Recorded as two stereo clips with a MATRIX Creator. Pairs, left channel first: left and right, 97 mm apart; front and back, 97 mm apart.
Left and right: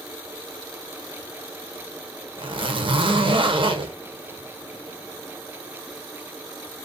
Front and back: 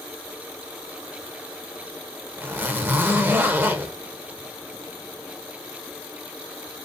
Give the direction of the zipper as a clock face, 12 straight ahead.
4 o'clock.